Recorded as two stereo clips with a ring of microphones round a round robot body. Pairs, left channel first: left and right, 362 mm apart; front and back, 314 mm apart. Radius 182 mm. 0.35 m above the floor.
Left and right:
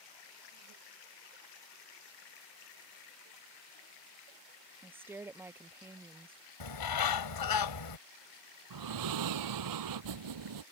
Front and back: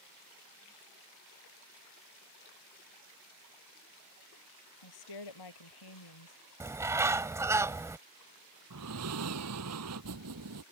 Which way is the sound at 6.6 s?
100° left.